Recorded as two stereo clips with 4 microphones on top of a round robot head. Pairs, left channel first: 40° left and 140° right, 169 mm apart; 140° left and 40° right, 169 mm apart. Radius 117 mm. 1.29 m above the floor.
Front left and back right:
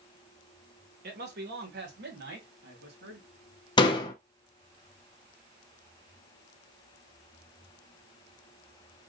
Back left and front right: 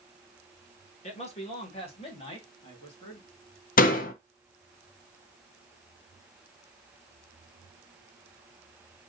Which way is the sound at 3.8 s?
105° left.